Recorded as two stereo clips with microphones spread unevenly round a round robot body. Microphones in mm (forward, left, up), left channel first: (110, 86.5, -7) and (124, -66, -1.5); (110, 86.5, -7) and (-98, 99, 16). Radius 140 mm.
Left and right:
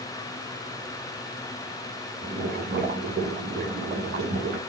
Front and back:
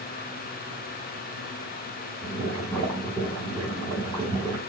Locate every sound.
2.2 s boiling: 90° right, 2 m